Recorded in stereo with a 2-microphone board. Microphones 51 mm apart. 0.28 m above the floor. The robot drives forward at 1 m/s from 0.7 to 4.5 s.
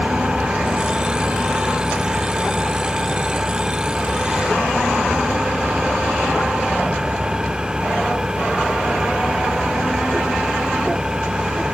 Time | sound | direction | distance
0.0 | an engine running | 20° right (ahead or behind) | ?